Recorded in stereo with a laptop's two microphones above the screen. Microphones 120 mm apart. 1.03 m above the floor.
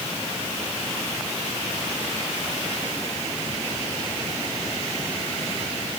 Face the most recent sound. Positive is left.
No sound to turn to.